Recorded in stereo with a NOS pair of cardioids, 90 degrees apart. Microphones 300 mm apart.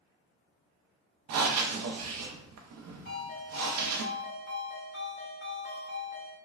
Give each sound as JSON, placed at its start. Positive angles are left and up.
{"t": 1.3, "sound": "breathing", "azimuth_deg": -60, "distance_m": 0.5}
{"t": 3.0, "sound": "a ringtone", "azimuth_deg": 40, "distance_m": 1.6}